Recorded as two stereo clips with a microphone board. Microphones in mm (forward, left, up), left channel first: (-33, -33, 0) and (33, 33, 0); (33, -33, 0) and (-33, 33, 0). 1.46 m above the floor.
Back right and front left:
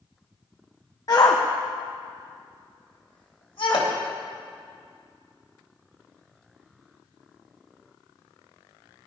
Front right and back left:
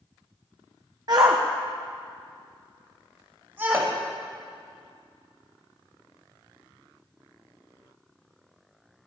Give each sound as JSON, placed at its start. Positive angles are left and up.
{"t": 1.1, "sound": "a shout", "azimuth_deg": 180, "distance_m": 1.0}
{"t": 3.7, "sound": "hammering", "azimuth_deg": -170, "distance_m": 2.5}